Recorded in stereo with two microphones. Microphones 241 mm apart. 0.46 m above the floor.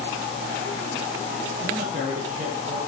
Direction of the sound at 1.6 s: 45° right (ahead or behind).